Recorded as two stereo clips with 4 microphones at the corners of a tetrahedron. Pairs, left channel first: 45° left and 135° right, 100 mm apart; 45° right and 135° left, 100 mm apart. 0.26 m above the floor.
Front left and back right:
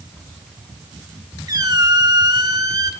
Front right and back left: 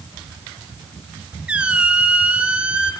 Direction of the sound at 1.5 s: 155° right.